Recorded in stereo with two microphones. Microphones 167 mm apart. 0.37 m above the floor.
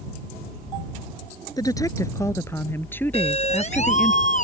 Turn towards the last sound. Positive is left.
turn(degrees=50)  # may be behind; listen again after turning